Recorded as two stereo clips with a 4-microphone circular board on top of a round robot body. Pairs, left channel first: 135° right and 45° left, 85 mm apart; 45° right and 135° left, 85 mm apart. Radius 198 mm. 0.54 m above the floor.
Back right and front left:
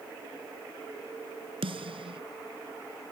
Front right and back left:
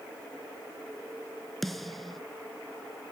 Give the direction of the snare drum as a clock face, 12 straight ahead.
11 o'clock.